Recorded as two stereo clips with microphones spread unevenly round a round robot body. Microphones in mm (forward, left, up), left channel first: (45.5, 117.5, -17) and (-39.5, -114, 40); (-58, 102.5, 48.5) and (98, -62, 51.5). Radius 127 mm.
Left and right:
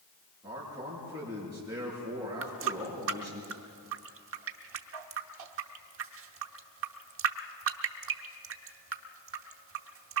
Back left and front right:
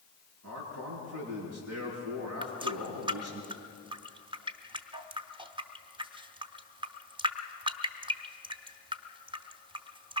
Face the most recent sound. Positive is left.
turn(degrees=-105)